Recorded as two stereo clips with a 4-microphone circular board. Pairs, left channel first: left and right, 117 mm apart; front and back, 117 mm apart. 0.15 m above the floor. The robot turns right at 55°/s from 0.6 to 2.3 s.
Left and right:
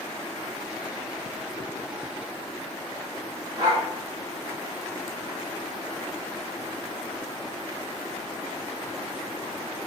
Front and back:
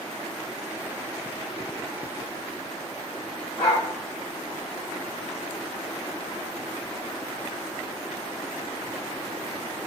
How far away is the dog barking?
About 4.5 m.